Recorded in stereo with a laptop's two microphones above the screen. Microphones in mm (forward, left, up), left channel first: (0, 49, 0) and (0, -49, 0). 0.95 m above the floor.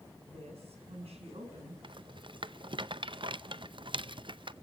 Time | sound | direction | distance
0.3 | a woman speaking | 85° right | 8 m
1.8 | a rattle | 55° right (ahead or behind) | 0.6 m